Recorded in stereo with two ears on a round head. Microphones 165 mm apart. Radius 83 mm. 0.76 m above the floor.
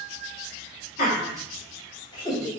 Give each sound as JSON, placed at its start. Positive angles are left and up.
{"t": 1.0, "sound": "laughter", "side_deg": 45, "distance_m": 1.4}